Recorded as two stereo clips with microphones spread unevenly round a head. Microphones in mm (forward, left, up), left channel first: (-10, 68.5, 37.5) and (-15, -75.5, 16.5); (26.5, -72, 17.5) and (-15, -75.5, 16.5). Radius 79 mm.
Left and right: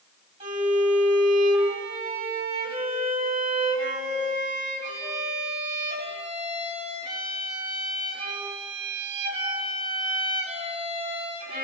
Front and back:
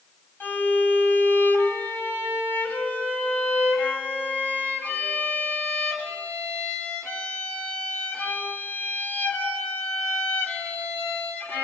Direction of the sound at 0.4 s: 35° right.